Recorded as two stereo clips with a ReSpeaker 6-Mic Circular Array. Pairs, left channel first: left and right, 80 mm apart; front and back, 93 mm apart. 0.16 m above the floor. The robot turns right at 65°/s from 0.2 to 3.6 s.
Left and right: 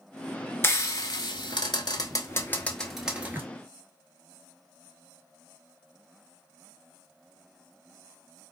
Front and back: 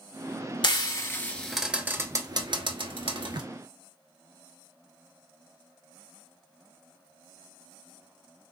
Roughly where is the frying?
Ahead left.